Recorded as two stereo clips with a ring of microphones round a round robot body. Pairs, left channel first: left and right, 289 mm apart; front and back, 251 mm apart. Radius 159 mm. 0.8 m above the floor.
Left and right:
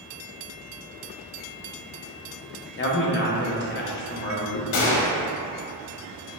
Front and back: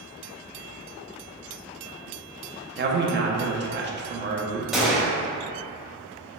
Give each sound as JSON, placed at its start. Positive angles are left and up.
{"t": 2.8, "sound": "a man speaking", "azimuth_deg": 135, "distance_m": 0.8}
{"t": 4.7, "sound": "a gunshot", "azimuth_deg": 90, "distance_m": 0.9}